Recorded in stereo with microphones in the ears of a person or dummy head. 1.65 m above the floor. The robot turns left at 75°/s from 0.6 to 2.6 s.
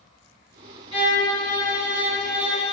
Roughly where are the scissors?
I don't hear scissors.